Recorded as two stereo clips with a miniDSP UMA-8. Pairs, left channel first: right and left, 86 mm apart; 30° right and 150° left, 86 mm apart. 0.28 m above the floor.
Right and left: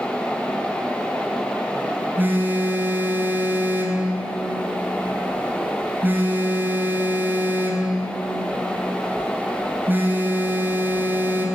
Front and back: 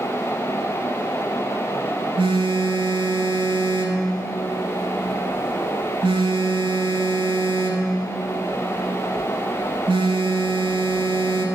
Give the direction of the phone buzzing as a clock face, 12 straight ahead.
7 o'clock.